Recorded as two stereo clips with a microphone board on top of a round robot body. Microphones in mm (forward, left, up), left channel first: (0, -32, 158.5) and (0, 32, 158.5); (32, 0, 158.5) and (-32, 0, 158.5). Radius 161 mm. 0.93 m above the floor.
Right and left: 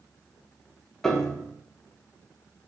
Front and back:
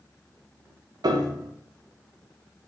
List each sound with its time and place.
1.0 s a piano: 170° right, 0.6 m